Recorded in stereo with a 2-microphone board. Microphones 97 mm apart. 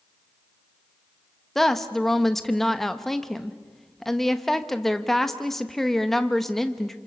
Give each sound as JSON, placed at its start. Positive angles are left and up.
{"t": 1.6, "sound": "a woman speaking", "side_deg": 5, "distance_m": 1.1}